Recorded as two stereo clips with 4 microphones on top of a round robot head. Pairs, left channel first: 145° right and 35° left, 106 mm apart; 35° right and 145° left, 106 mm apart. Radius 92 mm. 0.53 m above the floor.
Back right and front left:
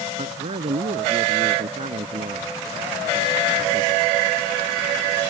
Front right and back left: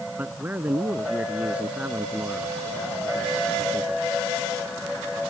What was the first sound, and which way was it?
A man speaking, 70° left.